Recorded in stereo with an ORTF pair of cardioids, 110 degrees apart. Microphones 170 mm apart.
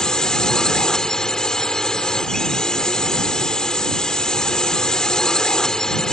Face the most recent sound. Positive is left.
turn(degrees=5)